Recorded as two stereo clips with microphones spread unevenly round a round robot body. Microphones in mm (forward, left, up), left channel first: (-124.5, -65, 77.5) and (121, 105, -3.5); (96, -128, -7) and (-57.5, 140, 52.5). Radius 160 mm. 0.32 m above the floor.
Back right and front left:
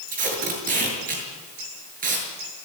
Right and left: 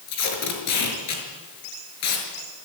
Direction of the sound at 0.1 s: 25° right.